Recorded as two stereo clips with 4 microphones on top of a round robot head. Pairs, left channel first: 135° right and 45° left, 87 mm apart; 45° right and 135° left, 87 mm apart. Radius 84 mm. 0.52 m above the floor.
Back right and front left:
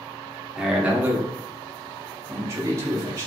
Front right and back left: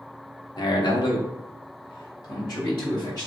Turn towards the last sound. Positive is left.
turn(degrees=-5)